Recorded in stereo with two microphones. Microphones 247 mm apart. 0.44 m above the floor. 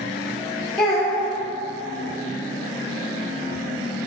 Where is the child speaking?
Centre (ahead or behind), 0.8 m.